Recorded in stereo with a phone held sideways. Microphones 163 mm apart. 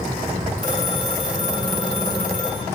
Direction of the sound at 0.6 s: 60° right (ahead or behind).